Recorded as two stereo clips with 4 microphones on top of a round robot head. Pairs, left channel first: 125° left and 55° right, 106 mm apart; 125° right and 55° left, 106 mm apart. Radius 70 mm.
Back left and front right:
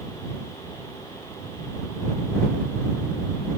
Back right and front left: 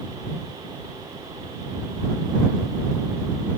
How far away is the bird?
I don't hear a bird.